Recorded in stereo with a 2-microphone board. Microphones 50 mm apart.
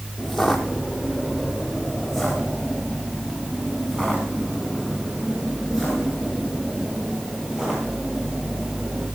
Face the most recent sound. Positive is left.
turn(degrees=-10)  # may be behind; listen again after turning